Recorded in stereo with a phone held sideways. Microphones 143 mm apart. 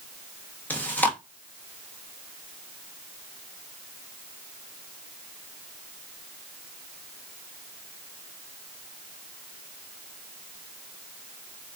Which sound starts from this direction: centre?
Chewing, at 0.7 s.